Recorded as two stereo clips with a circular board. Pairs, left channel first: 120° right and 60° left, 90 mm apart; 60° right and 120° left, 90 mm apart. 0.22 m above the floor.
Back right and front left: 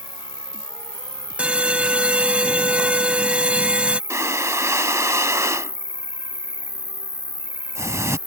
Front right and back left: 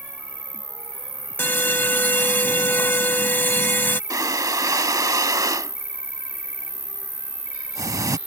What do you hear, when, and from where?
0.0 s an insect: 60° left
1.4 s an alarm: 10° right
4.1 s breathing: 100° left